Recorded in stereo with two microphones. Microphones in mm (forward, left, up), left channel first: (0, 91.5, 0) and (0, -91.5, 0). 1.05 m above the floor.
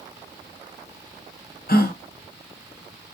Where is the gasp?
55° left (ahead or behind), 0.6 m.